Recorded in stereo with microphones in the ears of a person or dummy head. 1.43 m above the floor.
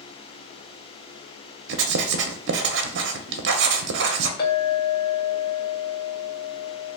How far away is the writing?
About 0.5 m.